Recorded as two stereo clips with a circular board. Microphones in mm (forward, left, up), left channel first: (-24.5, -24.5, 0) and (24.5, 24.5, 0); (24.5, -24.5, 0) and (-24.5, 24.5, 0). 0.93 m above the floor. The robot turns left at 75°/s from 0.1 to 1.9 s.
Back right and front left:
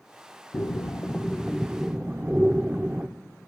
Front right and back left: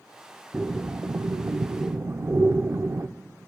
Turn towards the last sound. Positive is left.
turn(degrees=105)